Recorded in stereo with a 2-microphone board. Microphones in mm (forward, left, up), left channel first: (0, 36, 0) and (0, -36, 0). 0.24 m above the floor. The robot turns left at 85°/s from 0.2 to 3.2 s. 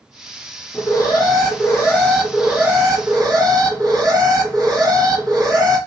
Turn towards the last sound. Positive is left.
turn(degrees=-80)